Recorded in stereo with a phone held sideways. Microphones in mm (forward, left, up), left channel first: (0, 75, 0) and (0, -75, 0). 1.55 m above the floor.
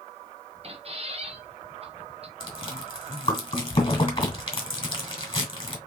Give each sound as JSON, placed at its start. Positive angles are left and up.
{"t": 0.6, "sound": "a squeak", "side_deg": -40, "distance_m": 0.7}
{"t": 2.4, "sound": "chewing", "side_deg": 35, "distance_m": 2.0}